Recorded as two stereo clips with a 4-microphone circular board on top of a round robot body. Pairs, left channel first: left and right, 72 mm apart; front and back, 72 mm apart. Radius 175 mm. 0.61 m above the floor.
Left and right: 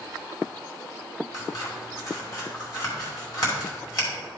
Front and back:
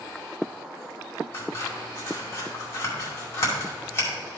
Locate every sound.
1.3 s scissors: 55° left, 3 m